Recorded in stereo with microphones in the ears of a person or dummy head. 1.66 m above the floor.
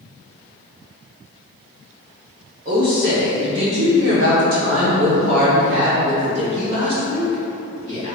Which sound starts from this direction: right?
A woman speaking, at 2.6 s.